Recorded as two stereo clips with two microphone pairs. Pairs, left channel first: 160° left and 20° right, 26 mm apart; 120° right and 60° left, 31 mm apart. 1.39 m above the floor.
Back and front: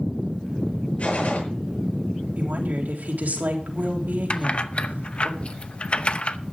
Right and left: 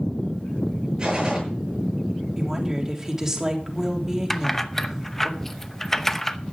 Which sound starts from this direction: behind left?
A gunshot, at 1.0 s.